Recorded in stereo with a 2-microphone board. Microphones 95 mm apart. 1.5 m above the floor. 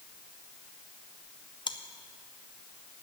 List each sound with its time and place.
1.7 s chewing: 55° left (ahead or behind), 0.6 m